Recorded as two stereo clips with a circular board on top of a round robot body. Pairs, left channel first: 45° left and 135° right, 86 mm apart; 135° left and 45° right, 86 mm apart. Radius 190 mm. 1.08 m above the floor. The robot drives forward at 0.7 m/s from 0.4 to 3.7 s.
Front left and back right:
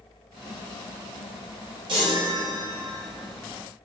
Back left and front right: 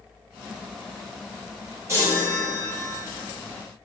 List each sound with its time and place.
1.9 s a chime: 105° right, 0.6 m; by 3.0 s 150° right, 1.1 m